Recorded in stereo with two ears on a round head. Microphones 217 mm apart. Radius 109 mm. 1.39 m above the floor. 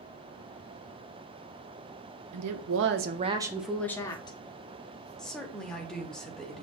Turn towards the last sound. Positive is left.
turn(degrees=5)  # may be behind; listen again after turning